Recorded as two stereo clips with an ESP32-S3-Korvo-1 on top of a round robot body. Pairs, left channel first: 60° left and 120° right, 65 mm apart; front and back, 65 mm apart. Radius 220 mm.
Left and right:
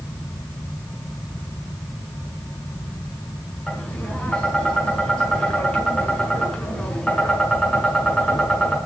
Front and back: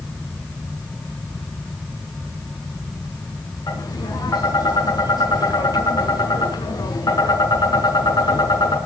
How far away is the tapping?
About 6.5 m.